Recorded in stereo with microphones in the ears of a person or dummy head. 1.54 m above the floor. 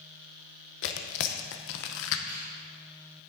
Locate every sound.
0.8 s tearing paper: 60° left (ahead or behind), 0.8 m
2.3 s a finger snap: 30° right (ahead or behind), 3 m